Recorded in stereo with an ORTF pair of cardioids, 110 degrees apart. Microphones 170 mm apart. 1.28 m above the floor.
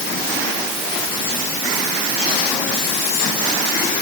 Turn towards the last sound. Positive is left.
No sound to turn to.